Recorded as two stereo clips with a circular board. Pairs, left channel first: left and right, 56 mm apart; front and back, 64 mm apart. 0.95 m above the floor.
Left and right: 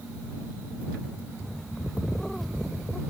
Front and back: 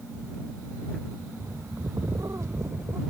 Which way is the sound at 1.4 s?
175° left.